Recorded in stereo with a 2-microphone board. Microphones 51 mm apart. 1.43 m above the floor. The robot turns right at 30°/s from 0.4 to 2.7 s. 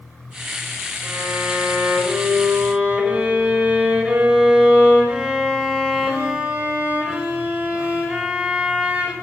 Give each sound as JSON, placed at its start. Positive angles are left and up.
{"t": 1.0, "sound": "a violin", "azimuth_deg": -75, "distance_m": 5.0}